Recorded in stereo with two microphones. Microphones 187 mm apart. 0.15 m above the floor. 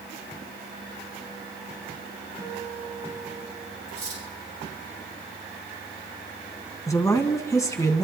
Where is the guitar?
15° right (ahead or behind), 9 m.